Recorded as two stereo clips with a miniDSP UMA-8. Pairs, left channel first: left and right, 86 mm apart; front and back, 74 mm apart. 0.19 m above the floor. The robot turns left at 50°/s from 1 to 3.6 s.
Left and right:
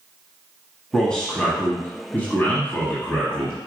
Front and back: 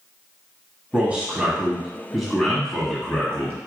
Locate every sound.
0.9 s a man speaking: 160° left, 1.1 m; by 3.7 s 30° left, 1.1 m